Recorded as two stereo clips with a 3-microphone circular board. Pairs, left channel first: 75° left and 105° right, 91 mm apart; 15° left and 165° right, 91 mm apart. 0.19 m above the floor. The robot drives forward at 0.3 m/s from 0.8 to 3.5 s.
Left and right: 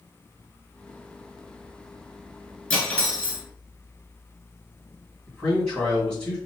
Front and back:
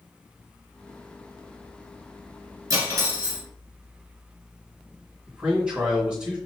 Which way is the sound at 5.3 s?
140° left.